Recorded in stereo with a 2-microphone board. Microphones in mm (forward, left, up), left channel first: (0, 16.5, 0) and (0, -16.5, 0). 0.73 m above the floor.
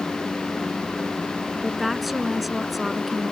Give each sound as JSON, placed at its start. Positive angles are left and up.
{"t": 1.6, "sound": "a woman speaking", "side_deg": 0}